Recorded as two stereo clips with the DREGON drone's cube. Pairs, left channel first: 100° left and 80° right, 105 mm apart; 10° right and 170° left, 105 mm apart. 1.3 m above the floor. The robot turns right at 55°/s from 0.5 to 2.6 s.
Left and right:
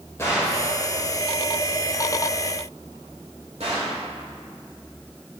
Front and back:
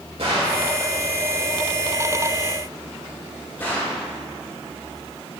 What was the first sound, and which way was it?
A gunshot, 165° left.